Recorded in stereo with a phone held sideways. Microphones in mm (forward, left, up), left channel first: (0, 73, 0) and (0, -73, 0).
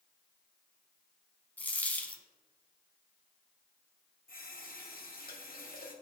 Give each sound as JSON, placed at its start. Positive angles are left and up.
{"t": 1.6, "sound": "a dropped coin", "side_deg": 10, "distance_m": 0.8}
{"t": 4.3, "sound": "a running tap", "side_deg": 85, "distance_m": 1.3}